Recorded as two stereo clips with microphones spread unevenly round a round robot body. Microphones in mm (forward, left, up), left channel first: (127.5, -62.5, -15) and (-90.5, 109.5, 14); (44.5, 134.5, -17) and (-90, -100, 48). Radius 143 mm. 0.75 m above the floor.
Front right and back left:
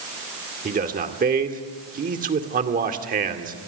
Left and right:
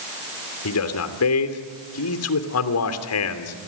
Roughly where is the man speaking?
Left.